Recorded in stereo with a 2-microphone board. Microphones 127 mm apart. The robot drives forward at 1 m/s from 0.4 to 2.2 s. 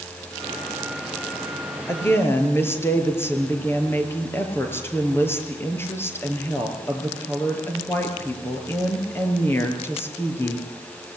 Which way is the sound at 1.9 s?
20° left (ahead or behind).